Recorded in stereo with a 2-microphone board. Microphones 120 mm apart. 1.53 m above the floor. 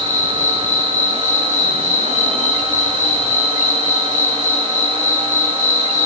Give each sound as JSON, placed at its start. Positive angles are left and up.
{"t": 0.0, "sound": "an insect", "side_deg": 90, "distance_m": 7.0}